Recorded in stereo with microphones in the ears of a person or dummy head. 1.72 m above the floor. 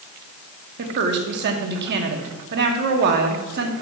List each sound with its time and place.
0.8 s a woman speaking: 55° right (ahead or behind), 1.4 m